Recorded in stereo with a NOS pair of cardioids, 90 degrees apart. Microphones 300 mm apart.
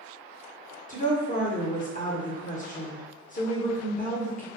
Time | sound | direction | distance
0.9 | a woman speaking | 25° left | 1.0 m